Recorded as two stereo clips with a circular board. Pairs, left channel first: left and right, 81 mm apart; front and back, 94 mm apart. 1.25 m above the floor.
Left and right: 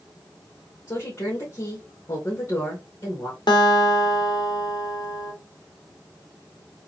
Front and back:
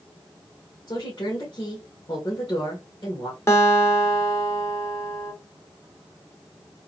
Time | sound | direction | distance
0.9 | a woman speaking | 40° left | 2.0 m
3.5 | a guitar | 60° left | 1.2 m